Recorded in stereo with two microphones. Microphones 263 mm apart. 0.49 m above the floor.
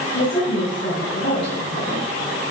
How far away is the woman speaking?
About 4.5 m.